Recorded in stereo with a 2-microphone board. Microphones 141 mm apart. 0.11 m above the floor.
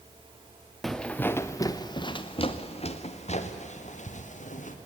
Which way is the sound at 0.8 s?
Centre (ahead or behind).